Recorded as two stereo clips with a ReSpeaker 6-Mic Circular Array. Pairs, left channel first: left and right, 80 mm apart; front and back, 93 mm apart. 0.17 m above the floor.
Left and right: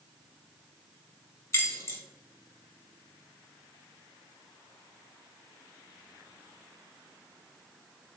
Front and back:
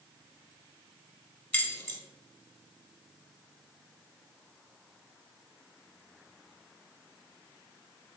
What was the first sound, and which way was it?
Keys jangling, 60° left.